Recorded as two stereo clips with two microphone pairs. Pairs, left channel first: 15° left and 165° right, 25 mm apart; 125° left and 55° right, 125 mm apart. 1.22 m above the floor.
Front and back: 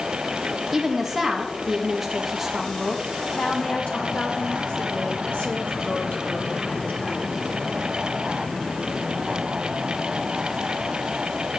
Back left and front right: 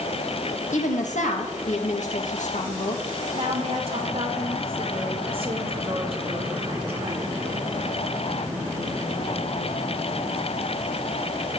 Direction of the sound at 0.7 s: 115° left.